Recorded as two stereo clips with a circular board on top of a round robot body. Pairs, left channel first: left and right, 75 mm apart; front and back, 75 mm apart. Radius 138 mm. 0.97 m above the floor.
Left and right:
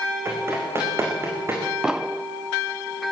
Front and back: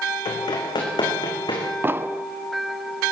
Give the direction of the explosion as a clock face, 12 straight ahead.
5 o'clock.